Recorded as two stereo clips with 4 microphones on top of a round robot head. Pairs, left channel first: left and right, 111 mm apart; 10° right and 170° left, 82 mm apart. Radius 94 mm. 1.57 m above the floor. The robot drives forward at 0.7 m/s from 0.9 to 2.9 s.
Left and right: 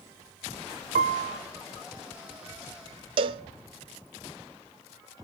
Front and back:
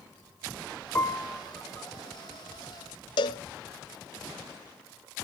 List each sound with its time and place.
0.9 s a piano: 80° right, 1.2 m; by 1.4 s 95° right, 1.2 m
3.2 s a cowbell: 45° right, 0.7 m